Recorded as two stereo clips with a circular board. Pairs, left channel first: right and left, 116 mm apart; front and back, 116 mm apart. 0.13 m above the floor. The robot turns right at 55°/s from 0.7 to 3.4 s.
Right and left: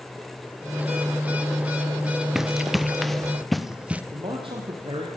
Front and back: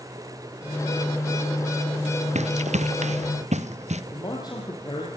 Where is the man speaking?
50° left, 4.5 m.